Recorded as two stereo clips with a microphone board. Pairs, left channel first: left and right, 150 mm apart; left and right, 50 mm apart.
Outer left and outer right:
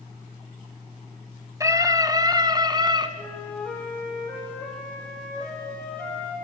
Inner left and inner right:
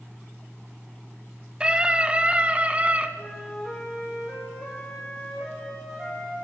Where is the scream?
20° right (ahead or behind), 1.5 m; by 3.1 s 30° right (ahead or behind), 2 m.